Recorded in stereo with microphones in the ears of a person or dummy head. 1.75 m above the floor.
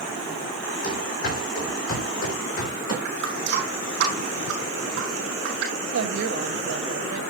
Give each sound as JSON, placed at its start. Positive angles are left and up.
{"t": 0.8, "sound": "running footsteps", "side_deg": 55, "distance_m": 4.5}
{"t": 3.0, "sound": "a running tap", "side_deg": -60, "distance_m": 7.5}
{"t": 5.9, "sound": "a woman speaking", "side_deg": -75, "distance_m": 1.8}